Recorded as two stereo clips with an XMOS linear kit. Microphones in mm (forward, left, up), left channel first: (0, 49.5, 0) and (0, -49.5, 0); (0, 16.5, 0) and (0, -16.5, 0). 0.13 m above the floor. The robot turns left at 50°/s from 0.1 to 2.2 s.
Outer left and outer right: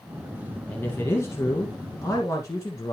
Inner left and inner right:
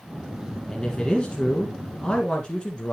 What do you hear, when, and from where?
0.7 s a man speaking: 150° left, 1.6 m; by 2.9 s 75° left, 1.6 m